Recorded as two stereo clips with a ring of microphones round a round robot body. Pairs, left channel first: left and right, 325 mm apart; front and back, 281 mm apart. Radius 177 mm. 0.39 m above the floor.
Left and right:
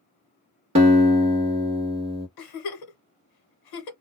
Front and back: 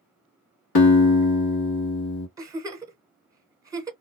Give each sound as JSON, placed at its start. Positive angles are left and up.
{"t": 0.8, "sound": "a guitar", "azimuth_deg": -20, "distance_m": 1.1}
{"t": 2.4, "sound": "a giggle", "azimuth_deg": 100, "distance_m": 1.0}